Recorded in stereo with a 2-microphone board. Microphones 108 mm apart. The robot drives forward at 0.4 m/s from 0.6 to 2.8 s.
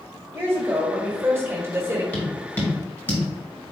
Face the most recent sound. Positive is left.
turn(degrees=20)  # may be behind; listen again after turning